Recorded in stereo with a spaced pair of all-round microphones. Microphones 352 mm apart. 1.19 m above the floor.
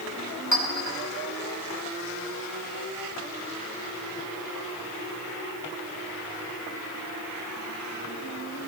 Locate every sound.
0.5 s a clink: 50° right (ahead or behind), 2.5 m